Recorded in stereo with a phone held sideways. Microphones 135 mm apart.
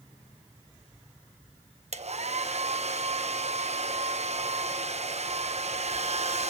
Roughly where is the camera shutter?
I don't hear a camera shutter.